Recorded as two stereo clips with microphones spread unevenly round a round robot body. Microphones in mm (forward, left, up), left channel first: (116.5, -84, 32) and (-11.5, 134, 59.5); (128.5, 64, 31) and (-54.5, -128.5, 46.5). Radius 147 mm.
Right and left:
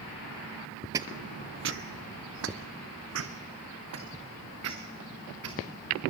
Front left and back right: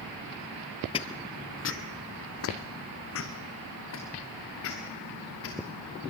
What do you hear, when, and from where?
0.9 s footsteps: 90° left, 0.5 m; by 5.6 s 95° left, 4 m